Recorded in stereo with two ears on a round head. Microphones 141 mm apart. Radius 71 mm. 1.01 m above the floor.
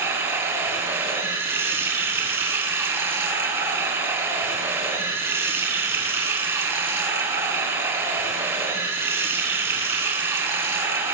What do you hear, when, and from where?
0.0 s running water: 15° right (ahead or behind), 5 m